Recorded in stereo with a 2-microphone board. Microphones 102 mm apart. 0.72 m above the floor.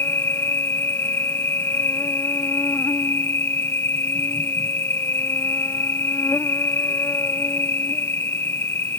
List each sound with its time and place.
0.0 s an insect: 20° left (ahead or behind)